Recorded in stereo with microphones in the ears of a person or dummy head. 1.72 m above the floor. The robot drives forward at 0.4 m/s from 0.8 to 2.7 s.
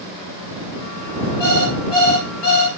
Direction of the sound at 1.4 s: 10° left (ahead or behind).